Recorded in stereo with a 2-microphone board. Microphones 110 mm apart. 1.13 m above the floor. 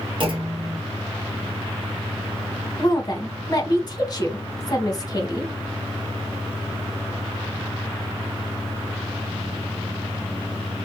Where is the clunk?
50° right (ahead or behind), 0.7 m.